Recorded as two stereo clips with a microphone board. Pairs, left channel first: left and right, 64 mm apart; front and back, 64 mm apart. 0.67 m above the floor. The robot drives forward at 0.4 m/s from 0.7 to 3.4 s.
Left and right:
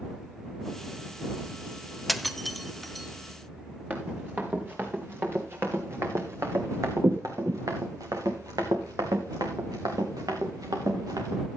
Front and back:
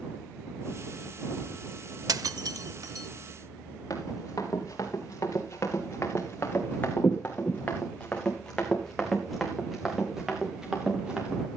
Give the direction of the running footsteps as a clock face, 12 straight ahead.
1 o'clock.